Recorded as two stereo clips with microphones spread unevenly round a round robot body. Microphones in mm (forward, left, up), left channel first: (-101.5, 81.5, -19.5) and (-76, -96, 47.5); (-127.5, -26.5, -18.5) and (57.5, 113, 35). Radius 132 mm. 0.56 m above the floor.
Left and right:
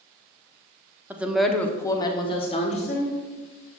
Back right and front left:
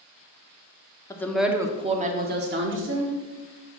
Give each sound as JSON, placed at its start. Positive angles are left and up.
{"t": 1.1, "sound": "a woman speaking", "azimuth_deg": 170, "distance_m": 1.2}